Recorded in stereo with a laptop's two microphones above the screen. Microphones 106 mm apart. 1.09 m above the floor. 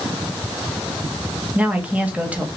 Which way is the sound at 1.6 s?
15° right (ahead or behind).